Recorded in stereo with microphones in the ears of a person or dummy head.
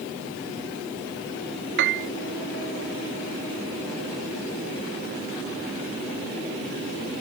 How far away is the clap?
I don't hear a clap.